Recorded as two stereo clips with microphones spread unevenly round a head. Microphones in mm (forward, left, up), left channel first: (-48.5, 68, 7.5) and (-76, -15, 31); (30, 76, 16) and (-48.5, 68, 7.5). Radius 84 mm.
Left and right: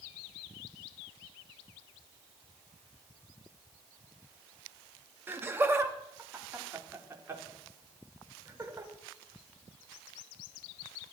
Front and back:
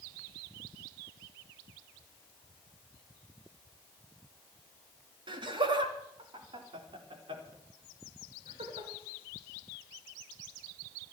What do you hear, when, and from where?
5.3 s laughter: 175° right, 2.5 m; by 8.9 s 165° right, 6 m